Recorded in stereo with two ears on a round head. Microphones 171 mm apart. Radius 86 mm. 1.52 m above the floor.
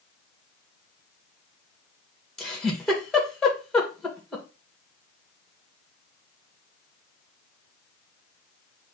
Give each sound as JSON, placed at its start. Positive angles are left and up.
{"t": 2.4, "sound": "a giggle", "side_deg": 5, "distance_m": 2.5}